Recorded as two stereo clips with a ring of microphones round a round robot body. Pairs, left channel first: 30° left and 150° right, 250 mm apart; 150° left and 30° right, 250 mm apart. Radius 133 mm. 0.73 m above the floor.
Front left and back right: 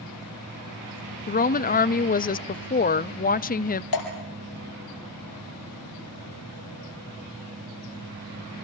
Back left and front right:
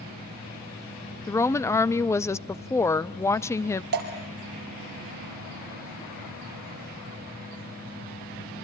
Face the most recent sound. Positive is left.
turn(degrees=25)